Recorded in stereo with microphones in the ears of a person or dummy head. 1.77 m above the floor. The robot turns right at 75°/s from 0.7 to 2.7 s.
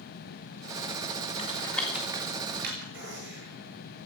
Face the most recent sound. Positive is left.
turn(degrees=-80)